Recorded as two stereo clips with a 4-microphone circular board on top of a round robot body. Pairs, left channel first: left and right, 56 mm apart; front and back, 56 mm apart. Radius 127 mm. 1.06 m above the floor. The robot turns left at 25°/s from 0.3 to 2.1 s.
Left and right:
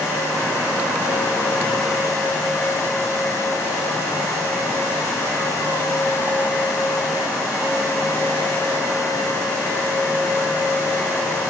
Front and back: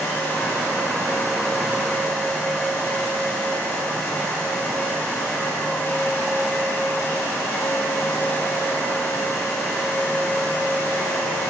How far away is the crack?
No crack in this recording.